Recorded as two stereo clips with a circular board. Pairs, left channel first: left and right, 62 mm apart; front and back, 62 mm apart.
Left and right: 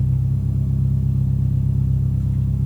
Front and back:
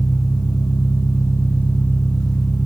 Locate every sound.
0.0 s an engine running: straight ahead, 4.5 m